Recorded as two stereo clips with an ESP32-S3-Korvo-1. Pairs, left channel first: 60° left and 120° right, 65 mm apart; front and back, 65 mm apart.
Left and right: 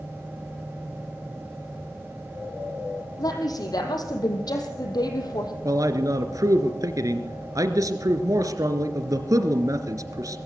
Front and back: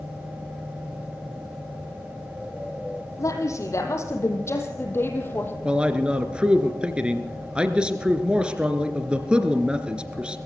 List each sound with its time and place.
3.2 s a woman speaking: 40° left, 5 m; by 5.5 s 60° left, 4.5 m
5.7 s a man speaking: 105° right, 2.5 m